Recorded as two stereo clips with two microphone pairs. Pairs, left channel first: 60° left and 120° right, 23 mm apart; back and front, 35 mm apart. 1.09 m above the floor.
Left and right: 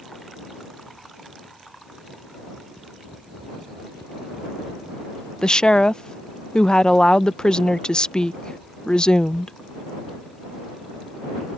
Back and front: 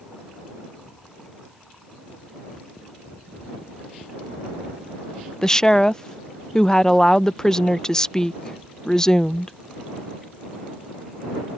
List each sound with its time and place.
5.4 s a woman speaking: 100° left